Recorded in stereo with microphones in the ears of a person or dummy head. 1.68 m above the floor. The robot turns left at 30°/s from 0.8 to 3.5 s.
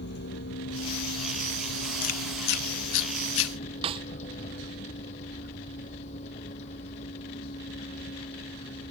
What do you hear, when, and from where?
0.0 s a vehicle: 55° left (ahead or behind); by 8.9 s 35° left (ahead or behind)
2.0 s chewing: 45° left (ahead or behind); by 3.5 s 75° left (ahead or behind)
3.8 s a snare drum: 30° right (ahead or behind)